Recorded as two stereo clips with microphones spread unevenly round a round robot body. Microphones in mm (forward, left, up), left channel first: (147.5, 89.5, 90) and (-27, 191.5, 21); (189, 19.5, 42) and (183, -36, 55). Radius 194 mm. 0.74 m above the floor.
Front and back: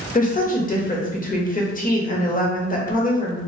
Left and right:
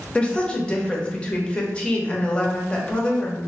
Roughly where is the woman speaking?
Ahead left.